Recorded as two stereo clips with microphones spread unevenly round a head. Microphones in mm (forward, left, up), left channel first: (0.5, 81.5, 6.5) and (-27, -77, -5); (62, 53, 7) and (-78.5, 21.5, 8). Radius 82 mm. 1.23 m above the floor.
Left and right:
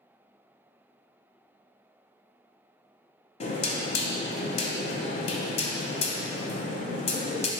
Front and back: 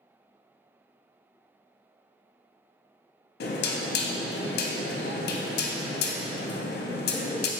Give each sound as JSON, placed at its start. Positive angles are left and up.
{"t": 3.4, "sound": "knocking", "azimuth_deg": 25, "distance_m": 0.6}